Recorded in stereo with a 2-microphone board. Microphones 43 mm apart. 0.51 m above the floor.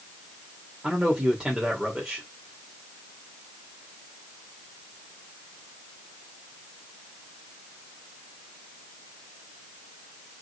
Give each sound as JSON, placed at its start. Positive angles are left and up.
{"t": 0.8, "sound": "a man speaking", "side_deg": -15, "distance_m": 1.7}